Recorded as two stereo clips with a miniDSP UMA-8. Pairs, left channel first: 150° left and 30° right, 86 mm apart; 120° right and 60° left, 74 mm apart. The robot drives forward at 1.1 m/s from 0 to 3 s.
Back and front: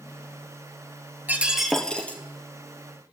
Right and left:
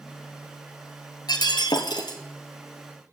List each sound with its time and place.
1.3 s breaking glass: 100° right, 1.0 m; by 2.2 s 140° right, 1.5 m